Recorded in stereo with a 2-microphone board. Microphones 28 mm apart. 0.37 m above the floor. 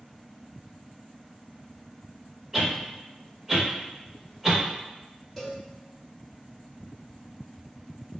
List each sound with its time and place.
2.5 s a whoosh: 10° right (ahead or behind), 1.0 m
5.4 s a cowbell: 5° left (ahead or behind), 1.3 m